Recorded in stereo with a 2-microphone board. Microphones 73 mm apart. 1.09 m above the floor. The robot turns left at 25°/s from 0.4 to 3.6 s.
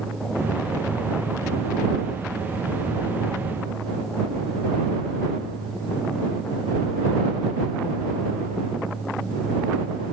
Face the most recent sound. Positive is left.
No sound to turn to.